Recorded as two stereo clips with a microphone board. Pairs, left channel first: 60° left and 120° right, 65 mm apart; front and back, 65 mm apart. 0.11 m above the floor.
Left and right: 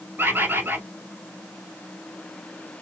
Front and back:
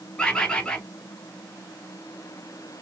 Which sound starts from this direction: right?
A bird, at 0.2 s.